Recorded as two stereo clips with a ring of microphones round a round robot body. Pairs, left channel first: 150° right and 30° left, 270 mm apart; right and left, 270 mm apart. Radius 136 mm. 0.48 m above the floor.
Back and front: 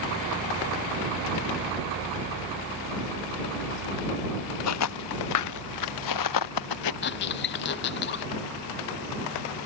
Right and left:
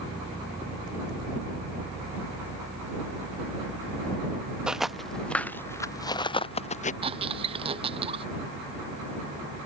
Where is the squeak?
160° left.